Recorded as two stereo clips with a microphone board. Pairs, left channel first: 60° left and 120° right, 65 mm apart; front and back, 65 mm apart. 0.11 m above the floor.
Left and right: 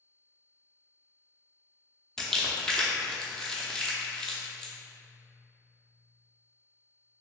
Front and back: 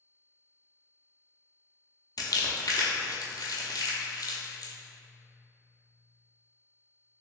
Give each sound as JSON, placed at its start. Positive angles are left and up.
{"t": 2.2, "sound": "crumpling", "azimuth_deg": -20, "distance_m": 0.6}